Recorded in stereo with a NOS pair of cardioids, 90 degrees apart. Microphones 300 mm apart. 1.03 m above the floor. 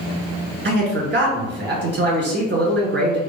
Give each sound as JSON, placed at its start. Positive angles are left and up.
{"t": 0.7, "sound": "a man speaking", "azimuth_deg": -35, "distance_m": 1.3}